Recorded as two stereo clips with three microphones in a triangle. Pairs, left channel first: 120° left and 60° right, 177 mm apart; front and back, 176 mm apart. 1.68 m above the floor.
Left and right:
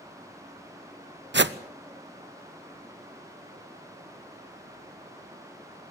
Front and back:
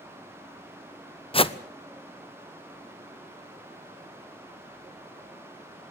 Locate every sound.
1.3 s a whoosh: 60° right, 0.8 m